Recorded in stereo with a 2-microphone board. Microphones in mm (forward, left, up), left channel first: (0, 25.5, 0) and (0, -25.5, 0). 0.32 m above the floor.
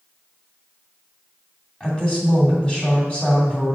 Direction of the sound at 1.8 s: 25° left (ahead or behind).